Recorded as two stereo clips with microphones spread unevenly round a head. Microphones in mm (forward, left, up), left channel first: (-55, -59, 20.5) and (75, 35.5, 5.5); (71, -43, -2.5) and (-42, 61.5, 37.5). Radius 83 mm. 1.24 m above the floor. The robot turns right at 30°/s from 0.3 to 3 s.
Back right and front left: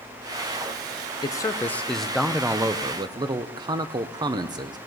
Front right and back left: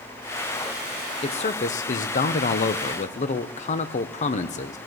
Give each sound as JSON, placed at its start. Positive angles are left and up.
{"t": 1.2, "sound": "a man speaking", "azimuth_deg": -75, "distance_m": 0.6}